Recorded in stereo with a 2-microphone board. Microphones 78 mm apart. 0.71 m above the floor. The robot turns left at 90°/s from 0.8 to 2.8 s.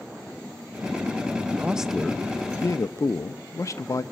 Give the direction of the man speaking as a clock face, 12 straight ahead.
5 o'clock.